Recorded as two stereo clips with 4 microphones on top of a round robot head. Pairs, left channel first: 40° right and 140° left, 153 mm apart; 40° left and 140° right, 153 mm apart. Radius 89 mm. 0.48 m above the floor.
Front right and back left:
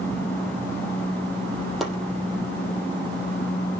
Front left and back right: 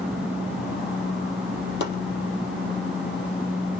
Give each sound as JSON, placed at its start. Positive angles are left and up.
{"t": 1.8, "sound": "chopping", "azimuth_deg": 50, "distance_m": 4.0}